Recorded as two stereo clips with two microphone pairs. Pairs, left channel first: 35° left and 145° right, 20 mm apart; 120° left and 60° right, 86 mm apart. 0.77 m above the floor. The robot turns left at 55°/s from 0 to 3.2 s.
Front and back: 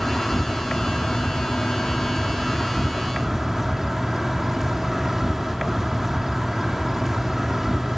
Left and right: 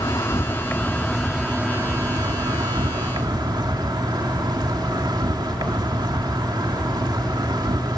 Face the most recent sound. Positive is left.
turn(degrees=-80)